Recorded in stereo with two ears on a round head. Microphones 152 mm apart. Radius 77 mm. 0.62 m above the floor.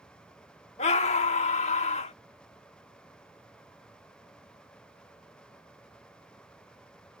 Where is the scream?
40° left (ahead or behind).